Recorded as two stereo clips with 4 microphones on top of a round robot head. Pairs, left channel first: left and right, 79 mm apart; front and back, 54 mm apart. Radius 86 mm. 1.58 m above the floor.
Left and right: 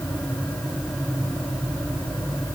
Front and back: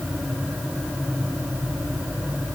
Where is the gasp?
I don't hear a gasp.